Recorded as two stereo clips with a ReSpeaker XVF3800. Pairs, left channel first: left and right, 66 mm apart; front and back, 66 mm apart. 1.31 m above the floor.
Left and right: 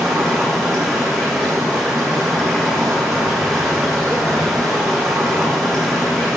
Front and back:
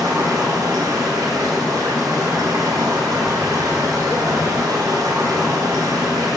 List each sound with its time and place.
0.0 s running water: 175° left, 2.5 m